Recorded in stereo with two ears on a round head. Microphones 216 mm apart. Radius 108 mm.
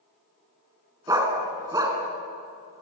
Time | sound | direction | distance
1.1 | a dog barking | 15° right (ahead or behind) | 2.5 m